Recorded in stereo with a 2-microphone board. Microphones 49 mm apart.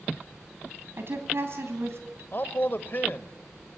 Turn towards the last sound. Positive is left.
turn(degrees=45)  # may be behind; listen again after turning